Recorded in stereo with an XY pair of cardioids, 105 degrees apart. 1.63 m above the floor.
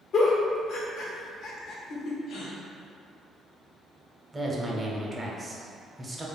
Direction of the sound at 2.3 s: 70° left.